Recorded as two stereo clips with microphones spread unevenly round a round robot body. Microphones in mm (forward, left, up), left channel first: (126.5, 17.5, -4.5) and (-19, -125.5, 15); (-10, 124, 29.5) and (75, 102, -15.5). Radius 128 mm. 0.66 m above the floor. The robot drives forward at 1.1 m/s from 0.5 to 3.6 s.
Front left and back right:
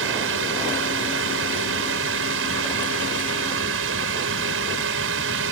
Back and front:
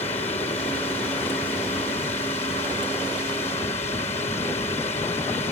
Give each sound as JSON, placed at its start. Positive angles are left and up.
{"t": 0.0, "sound": "a drone", "azimuth_deg": -140}